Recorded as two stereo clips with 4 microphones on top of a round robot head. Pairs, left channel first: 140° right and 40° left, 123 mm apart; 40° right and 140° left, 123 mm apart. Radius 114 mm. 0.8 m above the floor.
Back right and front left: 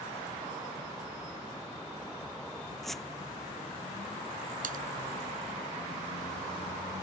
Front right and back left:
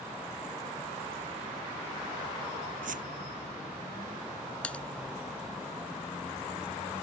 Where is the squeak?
130° left.